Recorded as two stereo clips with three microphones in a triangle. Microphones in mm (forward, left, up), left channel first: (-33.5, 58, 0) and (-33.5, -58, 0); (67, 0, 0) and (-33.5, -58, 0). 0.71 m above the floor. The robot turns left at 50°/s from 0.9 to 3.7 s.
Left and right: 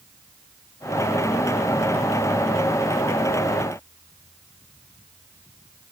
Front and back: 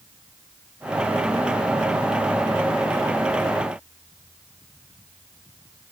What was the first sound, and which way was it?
Only background noise.